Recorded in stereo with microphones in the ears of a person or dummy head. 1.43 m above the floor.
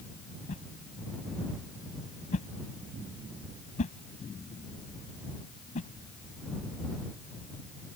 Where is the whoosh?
45° left (ahead or behind).